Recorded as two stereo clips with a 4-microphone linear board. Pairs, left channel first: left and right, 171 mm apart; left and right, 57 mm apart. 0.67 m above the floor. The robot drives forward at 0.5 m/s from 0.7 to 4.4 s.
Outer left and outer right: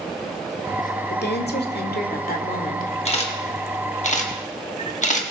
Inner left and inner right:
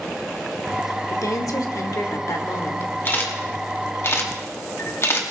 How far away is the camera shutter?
About 1.7 m.